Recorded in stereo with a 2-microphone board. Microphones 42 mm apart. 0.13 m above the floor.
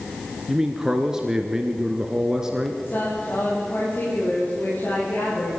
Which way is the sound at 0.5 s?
10° right (ahead or behind).